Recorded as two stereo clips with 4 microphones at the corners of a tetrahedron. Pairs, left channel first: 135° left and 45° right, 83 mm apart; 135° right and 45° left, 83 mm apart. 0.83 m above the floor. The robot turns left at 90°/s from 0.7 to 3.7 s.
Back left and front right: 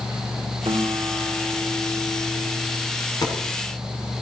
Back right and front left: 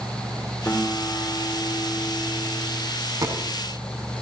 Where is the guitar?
65° right, 2.5 m; by 2.9 s 95° left, 2.5 m.